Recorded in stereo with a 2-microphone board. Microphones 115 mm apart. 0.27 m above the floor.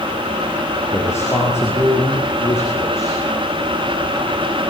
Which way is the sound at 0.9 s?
20° left (ahead or behind).